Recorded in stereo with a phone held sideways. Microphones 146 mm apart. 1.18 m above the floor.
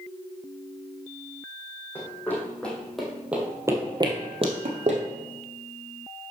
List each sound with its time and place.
1.9 s running footsteps: 15° left (ahead or behind), 2.5 m; by 5.0 s 50° right (ahead or behind), 1.8 m